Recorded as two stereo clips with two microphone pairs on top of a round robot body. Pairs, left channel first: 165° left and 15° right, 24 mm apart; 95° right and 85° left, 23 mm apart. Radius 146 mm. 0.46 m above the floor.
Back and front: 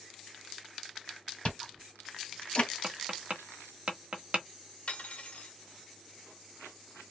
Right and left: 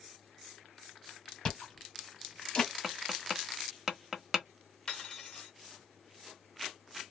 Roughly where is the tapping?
Ahead.